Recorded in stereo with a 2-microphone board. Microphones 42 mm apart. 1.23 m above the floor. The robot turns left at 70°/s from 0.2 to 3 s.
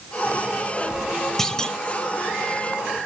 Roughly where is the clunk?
Centre.